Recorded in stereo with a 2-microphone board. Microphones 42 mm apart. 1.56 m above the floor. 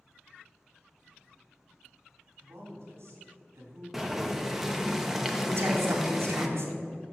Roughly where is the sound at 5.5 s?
Right.